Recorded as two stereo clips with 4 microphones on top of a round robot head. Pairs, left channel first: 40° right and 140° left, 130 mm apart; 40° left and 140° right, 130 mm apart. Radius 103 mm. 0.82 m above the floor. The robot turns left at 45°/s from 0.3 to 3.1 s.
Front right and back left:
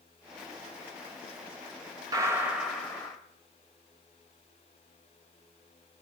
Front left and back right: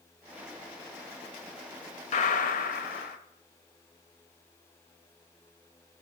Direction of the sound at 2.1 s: 75° left.